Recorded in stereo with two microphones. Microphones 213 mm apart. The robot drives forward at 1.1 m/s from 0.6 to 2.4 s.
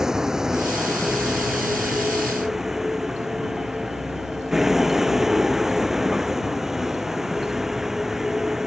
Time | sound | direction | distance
0.0 | a vehicle | 5° right (ahead or behind) | ?